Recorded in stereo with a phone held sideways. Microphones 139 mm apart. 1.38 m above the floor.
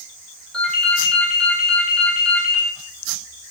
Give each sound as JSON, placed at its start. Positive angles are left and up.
{"t": 0.5, "sound": "a ringtone", "side_deg": 5, "distance_m": 1.4}